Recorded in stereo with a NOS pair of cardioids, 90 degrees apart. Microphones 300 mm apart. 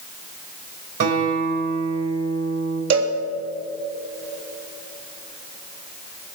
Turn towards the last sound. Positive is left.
turn(degrees=-65)